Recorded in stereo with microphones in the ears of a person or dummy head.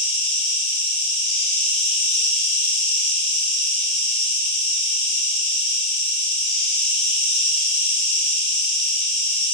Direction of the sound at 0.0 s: 5° left (ahead or behind).